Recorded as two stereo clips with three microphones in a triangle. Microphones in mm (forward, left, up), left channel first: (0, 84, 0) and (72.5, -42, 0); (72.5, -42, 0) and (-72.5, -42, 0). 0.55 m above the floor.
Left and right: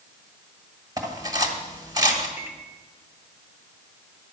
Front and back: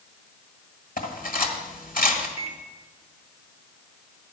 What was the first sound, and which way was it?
Cutlery clinking, 5° left.